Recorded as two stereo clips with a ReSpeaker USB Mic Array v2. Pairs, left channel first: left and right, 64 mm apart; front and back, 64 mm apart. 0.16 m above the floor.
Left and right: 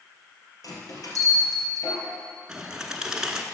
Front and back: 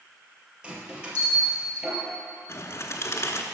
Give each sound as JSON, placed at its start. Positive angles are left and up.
{"t": 0.6, "sound": "a bell", "azimuth_deg": 105, "distance_m": 2.5}
{"t": 2.5, "sound": "a bird", "azimuth_deg": -15, "distance_m": 0.9}